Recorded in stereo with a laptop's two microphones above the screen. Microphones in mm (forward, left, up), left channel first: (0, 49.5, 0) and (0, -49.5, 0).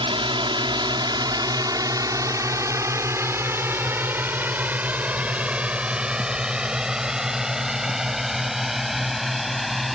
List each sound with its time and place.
0.0 s a drone: 60° right (ahead or behind); by 10.0 s centre (ahead or behind)